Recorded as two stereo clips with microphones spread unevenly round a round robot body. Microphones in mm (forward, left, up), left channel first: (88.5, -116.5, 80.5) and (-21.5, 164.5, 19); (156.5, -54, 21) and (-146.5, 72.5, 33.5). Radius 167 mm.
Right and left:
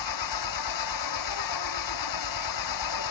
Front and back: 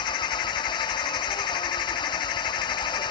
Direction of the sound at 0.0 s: 100° right.